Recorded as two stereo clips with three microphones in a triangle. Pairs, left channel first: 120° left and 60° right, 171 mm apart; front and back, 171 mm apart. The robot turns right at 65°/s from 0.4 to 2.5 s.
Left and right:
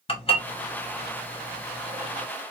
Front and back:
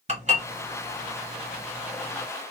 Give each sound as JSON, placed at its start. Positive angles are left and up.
{"t": 0.1, "sound": "dishes clattering", "azimuth_deg": 160, "distance_m": 1.0}